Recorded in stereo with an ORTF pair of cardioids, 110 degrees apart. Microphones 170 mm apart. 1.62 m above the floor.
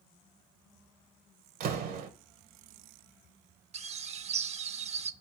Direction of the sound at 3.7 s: 40° right.